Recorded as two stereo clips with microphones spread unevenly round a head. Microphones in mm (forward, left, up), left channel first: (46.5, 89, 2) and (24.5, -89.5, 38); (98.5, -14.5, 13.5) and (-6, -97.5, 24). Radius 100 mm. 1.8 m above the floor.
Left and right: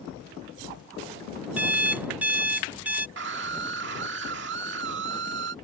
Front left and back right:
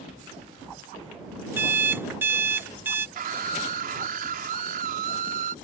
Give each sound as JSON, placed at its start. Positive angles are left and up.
{"t": 1.6, "sound": "an alarm clock", "azimuth_deg": -115}
{"t": 3.2, "sound": "a scream", "azimuth_deg": -135}